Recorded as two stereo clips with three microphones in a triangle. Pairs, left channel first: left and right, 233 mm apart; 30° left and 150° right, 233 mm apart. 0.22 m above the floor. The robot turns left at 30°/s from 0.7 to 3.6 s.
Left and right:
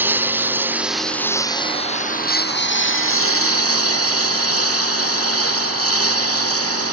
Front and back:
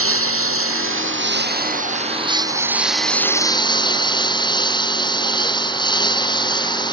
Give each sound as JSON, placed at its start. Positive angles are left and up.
{"t": 0.0, "sound": "a lawn mower", "azimuth_deg": -170}